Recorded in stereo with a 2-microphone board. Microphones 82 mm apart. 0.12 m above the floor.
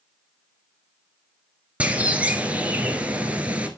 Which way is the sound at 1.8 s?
15° right (ahead or behind).